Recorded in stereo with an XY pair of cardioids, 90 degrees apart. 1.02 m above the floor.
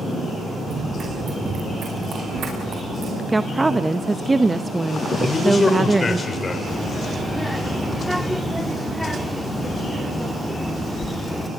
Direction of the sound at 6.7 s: Straight ahead.